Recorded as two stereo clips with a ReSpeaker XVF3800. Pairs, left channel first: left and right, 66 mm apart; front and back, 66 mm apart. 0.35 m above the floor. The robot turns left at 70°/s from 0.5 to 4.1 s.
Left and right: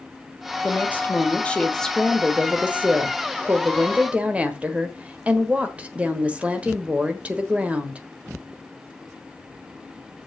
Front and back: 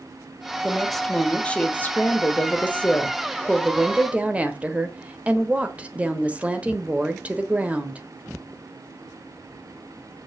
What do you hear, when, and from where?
0.6 s a woman speaking: 105° left, 1.2 m; by 8.0 s 135° right, 1.2 m